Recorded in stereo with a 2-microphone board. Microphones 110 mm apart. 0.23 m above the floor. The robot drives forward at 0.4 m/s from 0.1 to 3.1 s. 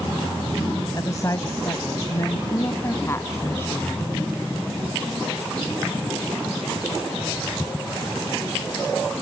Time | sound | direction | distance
0.9 | a woman speaking | 35° left (ahead or behind) | ?